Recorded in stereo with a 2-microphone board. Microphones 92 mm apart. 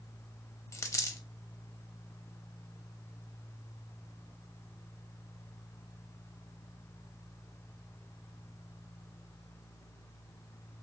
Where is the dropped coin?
35° left (ahead or behind), 0.5 m.